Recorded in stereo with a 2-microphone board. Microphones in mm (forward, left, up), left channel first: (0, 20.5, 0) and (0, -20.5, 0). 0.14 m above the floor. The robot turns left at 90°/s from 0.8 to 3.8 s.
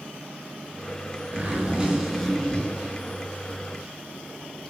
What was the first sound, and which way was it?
A zipper, 45° right (ahead or behind).